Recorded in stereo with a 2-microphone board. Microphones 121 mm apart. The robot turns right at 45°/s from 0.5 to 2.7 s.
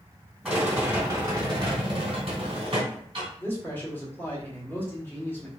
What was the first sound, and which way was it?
A rattle, 165° right.